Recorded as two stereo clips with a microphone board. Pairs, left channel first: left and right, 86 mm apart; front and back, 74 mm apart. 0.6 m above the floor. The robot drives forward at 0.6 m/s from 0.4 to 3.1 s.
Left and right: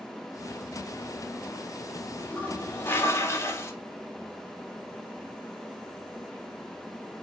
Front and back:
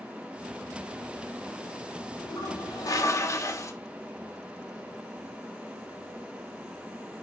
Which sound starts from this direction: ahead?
A toilet flushing, at 2.2 s.